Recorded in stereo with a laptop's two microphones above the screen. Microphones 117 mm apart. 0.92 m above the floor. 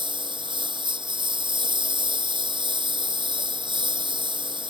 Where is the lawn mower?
45° right (ahead or behind).